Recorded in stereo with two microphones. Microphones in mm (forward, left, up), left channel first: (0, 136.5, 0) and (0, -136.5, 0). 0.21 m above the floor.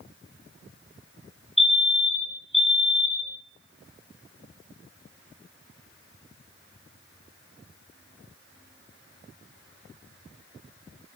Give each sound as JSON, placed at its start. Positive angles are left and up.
{"t": 1.6, "sound": "a fire alarm", "side_deg": 20, "distance_m": 2.0}